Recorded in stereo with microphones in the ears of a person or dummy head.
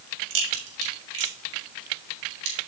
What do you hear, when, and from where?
0.3 s a crack: 80° right, 3.5 m